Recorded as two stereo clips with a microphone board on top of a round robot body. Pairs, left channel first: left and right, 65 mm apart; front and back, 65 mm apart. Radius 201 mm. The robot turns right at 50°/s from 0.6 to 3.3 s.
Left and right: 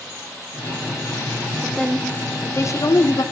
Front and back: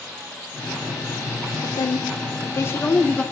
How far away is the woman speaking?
About 2 m.